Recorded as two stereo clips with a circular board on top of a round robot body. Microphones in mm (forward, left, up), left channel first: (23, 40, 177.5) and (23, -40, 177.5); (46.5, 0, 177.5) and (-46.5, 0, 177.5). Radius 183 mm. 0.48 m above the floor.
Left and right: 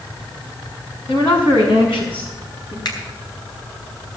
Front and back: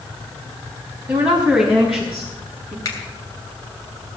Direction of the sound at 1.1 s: 105° left.